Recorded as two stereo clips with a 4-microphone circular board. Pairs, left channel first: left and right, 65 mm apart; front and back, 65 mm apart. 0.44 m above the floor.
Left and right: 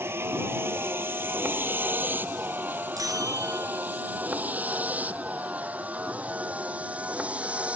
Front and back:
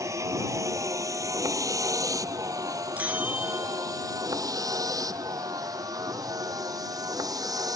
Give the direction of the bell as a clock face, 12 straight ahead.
4 o'clock.